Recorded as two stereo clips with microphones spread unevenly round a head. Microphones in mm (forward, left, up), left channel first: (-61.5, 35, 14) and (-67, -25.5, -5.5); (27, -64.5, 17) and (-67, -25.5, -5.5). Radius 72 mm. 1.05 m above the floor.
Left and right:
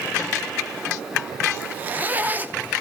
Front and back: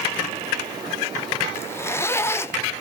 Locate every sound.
1.5 s a zipper: 95° right, 0.9 m